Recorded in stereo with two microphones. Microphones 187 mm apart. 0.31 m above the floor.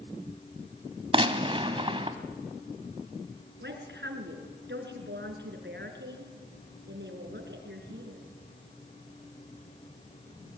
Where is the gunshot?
30° right (ahead or behind), 1.3 m.